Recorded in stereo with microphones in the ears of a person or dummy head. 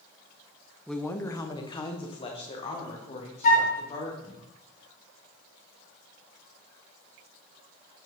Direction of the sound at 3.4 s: 50° left (ahead or behind).